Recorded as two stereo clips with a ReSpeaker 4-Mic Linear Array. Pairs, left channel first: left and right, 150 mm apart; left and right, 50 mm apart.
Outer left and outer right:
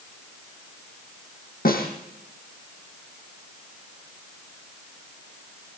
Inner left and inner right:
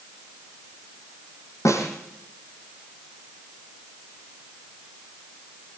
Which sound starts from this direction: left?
A snare drum, at 1.6 s.